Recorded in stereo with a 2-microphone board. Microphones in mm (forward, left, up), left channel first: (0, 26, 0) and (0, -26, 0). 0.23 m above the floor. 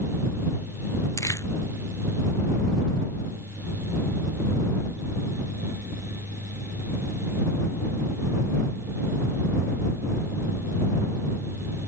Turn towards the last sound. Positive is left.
turn(degrees=80)